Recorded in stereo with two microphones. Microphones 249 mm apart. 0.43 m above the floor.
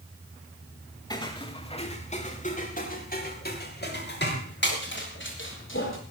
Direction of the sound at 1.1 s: 15° left (ahead or behind).